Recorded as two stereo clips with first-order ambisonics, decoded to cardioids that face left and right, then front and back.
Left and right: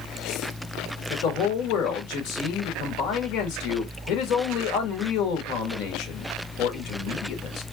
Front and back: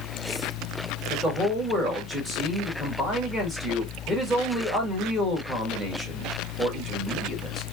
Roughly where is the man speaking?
Left.